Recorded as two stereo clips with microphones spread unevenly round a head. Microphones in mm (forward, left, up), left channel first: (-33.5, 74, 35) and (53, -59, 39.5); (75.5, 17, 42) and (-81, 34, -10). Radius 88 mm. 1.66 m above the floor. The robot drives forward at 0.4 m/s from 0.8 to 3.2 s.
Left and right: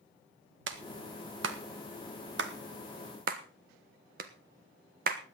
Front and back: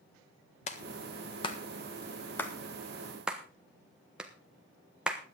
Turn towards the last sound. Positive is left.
turn(degrees=-95)